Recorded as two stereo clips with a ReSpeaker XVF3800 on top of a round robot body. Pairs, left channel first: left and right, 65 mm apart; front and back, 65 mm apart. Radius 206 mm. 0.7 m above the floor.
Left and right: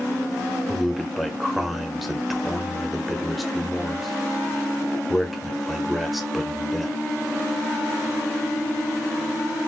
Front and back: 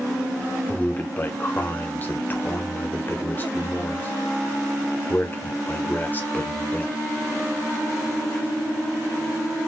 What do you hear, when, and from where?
0.7 s a man speaking: straight ahead, 0.8 m